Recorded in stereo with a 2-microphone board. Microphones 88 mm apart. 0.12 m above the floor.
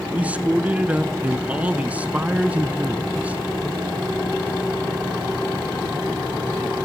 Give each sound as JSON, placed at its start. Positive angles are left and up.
{"t": 0.1, "sound": "a man speaking", "side_deg": -15, "distance_m": 1.0}